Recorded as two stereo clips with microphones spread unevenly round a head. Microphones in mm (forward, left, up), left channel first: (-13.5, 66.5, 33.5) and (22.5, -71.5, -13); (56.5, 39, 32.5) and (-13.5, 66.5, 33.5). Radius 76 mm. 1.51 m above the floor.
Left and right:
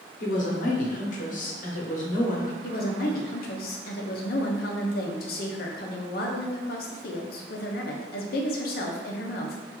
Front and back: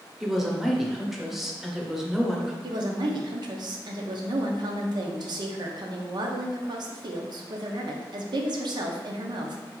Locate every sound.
0.2 s a woman speaking: 70° left, 0.9 m
2.6 s a woman speaking: 135° left, 0.7 m